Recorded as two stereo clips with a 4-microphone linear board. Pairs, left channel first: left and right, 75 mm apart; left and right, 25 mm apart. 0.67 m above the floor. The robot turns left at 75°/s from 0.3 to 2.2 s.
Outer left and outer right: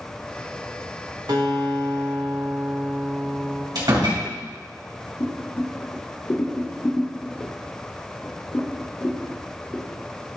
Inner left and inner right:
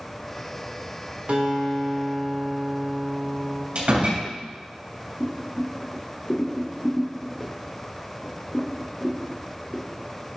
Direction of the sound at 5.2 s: 35° left (ahead or behind).